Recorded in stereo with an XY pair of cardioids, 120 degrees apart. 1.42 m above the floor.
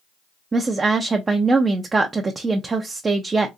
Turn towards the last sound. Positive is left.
turn(degrees=-25)